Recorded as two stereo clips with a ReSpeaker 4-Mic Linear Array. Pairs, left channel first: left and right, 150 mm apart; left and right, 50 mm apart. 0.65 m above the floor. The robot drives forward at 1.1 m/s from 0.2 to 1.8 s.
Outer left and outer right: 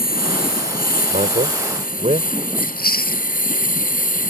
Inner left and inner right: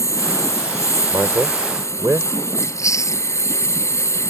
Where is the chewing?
85° left.